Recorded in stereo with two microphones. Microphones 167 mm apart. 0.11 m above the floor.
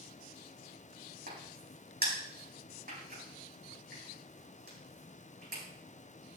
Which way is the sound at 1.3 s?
65° right (ahead or behind).